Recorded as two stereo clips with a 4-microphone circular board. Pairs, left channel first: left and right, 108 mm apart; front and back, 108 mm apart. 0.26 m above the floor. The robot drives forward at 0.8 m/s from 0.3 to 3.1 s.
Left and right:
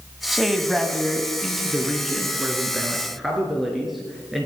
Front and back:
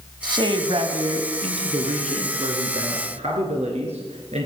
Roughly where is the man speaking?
Behind.